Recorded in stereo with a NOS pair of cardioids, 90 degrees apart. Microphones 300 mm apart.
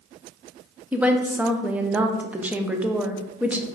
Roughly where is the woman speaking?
Ahead.